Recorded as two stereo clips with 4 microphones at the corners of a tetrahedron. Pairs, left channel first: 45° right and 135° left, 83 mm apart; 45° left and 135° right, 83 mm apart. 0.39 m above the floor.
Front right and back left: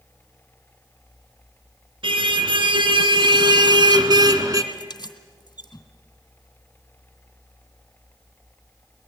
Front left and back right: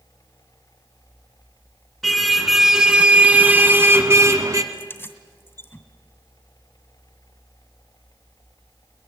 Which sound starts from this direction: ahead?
Keys jangling, at 4.7 s.